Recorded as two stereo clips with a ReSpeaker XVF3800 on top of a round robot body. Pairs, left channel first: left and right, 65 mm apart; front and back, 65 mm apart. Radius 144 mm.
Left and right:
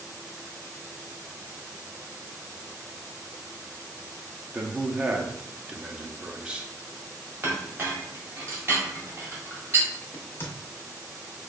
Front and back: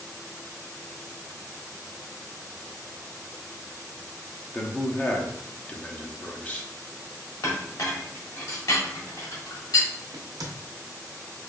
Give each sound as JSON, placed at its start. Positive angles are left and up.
{"t": 4.5, "sound": "a man speaking", "azimuth_deg": -35, "distance_m": 0.8}
{"t": 7.4, "sound": "a clink", "azimuth_deg": -35, "distance_m": 1.5}
{"t": 10.1, "sound": "a crack", "azimuth_deg": 150, "distance_m": 0.6}